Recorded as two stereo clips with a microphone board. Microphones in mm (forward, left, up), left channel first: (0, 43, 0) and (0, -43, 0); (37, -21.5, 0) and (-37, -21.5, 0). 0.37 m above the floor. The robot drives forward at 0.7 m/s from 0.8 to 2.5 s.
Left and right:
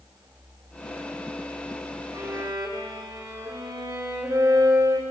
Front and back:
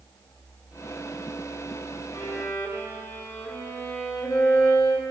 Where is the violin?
45° right, 2.5 m.